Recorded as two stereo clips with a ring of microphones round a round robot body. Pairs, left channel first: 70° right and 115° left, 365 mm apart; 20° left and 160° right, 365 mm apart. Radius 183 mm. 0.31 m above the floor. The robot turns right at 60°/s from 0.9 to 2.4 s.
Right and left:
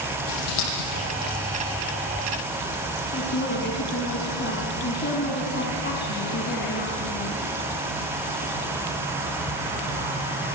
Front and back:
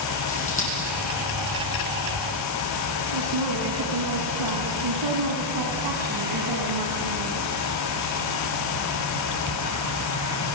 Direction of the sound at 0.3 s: 45° right.